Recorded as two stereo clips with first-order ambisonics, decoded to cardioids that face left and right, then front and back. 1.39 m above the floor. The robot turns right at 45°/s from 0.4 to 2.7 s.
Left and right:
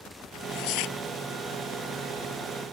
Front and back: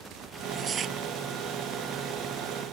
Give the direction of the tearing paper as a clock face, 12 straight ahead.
9 o'clock.